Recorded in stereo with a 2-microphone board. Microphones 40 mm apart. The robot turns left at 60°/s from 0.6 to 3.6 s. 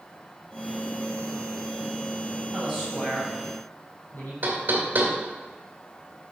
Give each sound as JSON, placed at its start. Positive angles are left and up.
{"t": 2.5, "sound": "a man speaking", "side_deg": -20, "distance_m": 4.5}
{"t": 4.4, "sound": "knocking", "side_deg": -50, "distance_m": 2.5}